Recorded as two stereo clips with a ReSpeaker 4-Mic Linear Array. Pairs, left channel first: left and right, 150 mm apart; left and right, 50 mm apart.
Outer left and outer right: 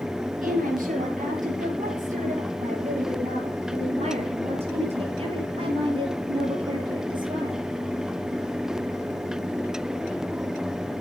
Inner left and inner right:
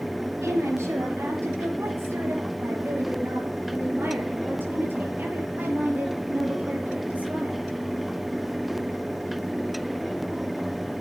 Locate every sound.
0.4 s a woman speaking: 65° right (ahead or behind), 6 m; by 7.6 s 30° right (ahead or behind), 6.5 m